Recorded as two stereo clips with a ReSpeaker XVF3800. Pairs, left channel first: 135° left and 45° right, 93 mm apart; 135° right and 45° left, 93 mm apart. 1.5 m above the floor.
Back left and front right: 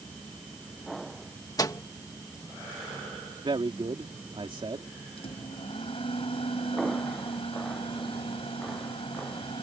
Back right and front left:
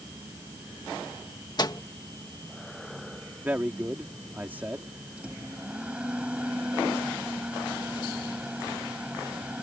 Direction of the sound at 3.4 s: 25° right.